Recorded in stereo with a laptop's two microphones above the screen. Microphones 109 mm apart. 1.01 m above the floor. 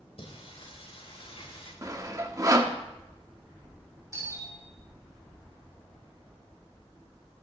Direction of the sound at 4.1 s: 30° right (ahead or behind).